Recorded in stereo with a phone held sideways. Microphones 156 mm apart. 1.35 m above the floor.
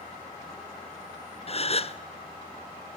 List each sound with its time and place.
1.5 s a gasp: 45° left (ahead or behind), 0.6 m